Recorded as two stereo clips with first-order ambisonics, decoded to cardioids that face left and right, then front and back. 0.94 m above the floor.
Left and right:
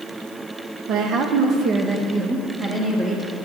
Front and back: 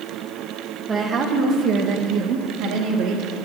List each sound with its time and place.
0.9 s a woman speaking: 115° right, 0.9 m; by 3.3 s 165° right, 1.8 m